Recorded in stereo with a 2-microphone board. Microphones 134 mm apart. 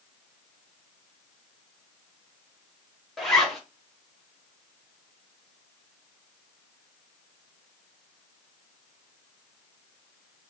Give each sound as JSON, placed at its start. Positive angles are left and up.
{"t": 3.2, "sound": "a zipper", "side_deg": 0, "distance_m": 1.1}